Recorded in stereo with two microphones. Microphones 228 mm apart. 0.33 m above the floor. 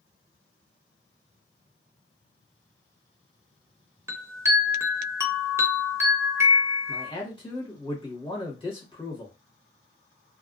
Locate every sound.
4.1 s a chime: 10° right (ahead or behind), 0.5 m
6.9 s a man speaking: 20° left (ahead or behind), 1.1 m